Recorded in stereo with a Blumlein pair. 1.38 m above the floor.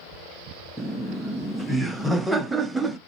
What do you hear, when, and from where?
0.8 s laughter: 5° right, 0.6 m